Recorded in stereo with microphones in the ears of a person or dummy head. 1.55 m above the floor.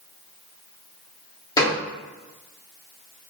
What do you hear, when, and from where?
1.6 s a gunshot: 25° left (ahead or behind), 0.7 m